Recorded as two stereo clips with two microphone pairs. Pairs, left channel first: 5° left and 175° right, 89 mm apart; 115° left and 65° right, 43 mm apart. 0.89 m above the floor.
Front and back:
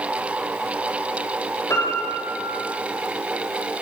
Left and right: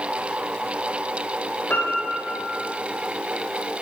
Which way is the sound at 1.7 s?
65° left.